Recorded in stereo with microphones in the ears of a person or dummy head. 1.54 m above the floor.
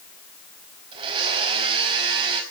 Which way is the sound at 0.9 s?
25° right (ahead or behind).